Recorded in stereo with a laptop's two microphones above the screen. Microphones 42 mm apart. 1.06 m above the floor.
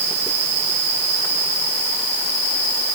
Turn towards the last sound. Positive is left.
No sound to turn to.